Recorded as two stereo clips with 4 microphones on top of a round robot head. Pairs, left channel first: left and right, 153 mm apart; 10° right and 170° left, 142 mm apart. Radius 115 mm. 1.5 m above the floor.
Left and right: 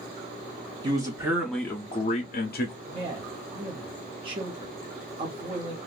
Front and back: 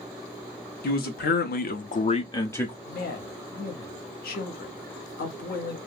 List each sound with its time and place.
0.8 s a man speaking: 25° right, 0.8 m; by 2.8 s 75° left, 0.6 m
2.9 s a man speaking: 25° right, 0.7 m